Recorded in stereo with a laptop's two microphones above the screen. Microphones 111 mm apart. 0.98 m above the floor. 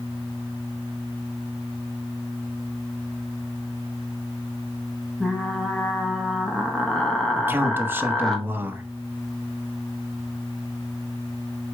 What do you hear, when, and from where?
5.2 s frying: 5° left (ahead or behind), 0.9 m
7.4 s a man speaking: 20° right (ahead or behind), 0.9 m